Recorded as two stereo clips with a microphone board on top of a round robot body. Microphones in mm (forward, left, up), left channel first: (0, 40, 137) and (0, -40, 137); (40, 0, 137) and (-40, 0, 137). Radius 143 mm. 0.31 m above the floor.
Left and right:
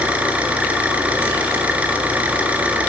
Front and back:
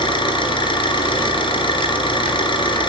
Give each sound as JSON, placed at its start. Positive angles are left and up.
{"t": 0.0, "sound": "an engine running", "azimuth_deg": -15, "distance_m": 2.5}